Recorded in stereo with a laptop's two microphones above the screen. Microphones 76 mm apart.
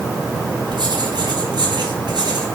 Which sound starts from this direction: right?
Writing, at 0.7 s.